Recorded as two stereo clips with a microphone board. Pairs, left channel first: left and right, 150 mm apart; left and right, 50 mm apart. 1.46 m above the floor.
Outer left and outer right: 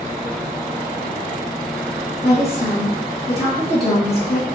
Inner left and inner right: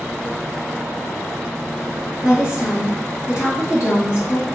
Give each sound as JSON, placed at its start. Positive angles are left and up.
{"t": 2.2, "sound": "a woman speaking", "side_deg": 80, "distance_m": 2.0}